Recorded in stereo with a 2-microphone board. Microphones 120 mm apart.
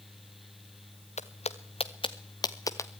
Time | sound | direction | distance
1.2 | footsteps | 65° left (ahead or behind) | 1.5 m